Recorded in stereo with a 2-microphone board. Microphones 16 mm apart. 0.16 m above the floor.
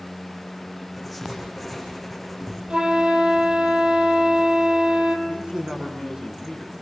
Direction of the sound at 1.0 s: 5° right (ahead or behind).